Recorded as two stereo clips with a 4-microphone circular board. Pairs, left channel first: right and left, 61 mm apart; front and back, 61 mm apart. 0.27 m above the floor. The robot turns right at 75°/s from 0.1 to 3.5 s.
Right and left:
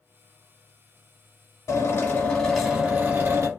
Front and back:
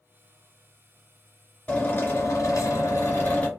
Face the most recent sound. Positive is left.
turn(degrees=70)